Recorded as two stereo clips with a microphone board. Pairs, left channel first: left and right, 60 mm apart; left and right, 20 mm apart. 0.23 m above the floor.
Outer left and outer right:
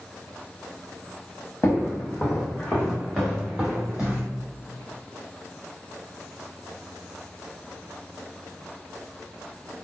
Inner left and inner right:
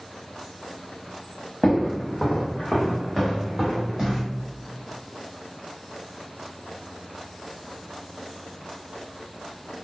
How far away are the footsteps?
About 1.1 m.